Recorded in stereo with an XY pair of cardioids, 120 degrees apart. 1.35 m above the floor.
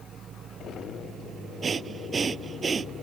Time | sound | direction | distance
1.6 | breathing | 35° right | ?